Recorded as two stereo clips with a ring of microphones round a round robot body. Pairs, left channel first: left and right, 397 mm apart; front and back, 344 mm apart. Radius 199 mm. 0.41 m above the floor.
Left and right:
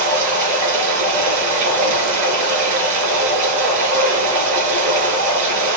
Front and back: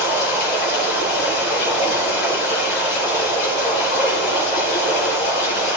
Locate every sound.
0.0 s running water: 50° right, 3.5 m